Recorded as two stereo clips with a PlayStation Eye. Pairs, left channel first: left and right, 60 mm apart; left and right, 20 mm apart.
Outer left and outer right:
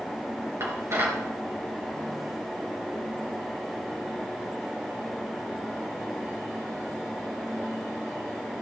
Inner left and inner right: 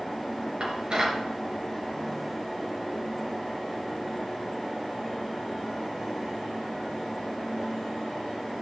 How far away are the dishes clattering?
About 3 m.